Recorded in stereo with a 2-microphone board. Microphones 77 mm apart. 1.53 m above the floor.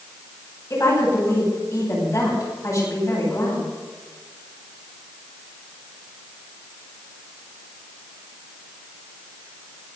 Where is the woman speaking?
40° left (ahead or behind), 9.5 m.